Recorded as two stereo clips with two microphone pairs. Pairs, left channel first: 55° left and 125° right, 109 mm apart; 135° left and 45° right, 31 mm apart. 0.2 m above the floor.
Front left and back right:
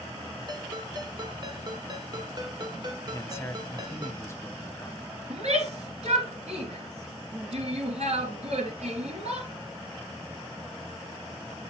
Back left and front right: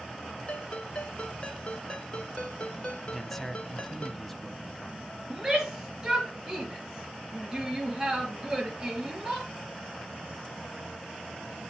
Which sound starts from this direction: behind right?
A shout, at 5.3 s.